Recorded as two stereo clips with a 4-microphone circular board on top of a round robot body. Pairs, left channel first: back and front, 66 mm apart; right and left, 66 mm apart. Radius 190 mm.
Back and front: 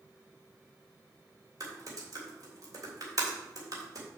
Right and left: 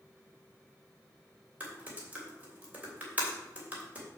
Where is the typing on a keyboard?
25° left, 3 m.